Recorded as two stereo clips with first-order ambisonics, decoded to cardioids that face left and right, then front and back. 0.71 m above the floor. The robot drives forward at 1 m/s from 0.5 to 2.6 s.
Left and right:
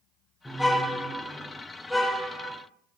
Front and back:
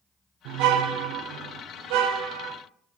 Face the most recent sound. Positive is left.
turn(degrees=180)